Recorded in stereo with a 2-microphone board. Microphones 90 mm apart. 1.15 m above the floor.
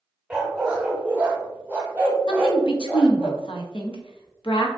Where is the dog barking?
10° right (ahead or behind), 1.0 m; by 3.3 s 20° right (ahead or behind), 1.8 m.